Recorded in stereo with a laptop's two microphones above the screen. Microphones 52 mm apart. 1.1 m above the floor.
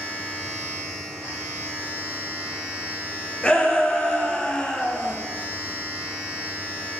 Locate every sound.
0.0 s a machine running: 20° right (ahead or behind), 1.9 m
3.4 s a shout: 15° left (ahead or behind), 0.8 m